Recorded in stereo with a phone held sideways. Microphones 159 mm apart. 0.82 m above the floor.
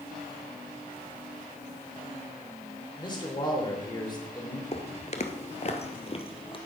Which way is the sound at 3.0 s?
30° left (ahead or behind).